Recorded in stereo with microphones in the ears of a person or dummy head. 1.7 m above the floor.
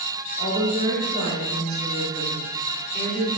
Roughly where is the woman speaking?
Left.